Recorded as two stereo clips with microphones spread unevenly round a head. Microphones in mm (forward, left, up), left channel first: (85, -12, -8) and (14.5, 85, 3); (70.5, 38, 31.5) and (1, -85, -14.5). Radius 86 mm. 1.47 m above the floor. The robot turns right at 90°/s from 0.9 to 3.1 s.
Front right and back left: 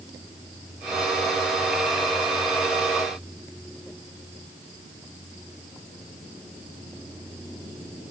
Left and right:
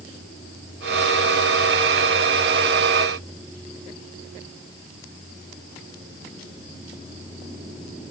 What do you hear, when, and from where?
Only background noise.